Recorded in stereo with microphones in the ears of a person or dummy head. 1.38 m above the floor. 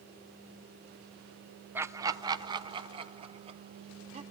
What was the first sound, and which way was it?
Laughter, 10° right (ahead or behind).